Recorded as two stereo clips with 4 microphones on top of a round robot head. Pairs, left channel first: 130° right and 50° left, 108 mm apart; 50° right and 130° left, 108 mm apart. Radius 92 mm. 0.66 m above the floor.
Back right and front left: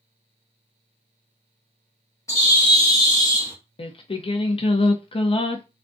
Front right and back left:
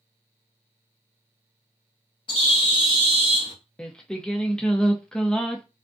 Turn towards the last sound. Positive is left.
turn(degrees=-135)